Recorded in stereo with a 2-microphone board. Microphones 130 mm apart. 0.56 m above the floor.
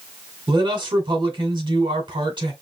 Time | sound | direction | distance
0.5 | a man speaking | 35° right (ahead or behind) | 2 m